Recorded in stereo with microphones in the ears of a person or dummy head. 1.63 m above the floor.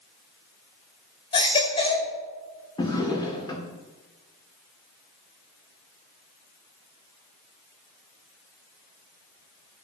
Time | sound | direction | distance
1.3 | a baby crying | 25° left (ahead or behind) | 1.6 m
2.8 | a drawer | 25° left (ahead or behind) | 1.5 m